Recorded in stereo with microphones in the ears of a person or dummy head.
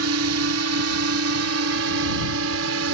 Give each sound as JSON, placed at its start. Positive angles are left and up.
{"t": 0.0, "sound": "a drone", "side_deg": -70}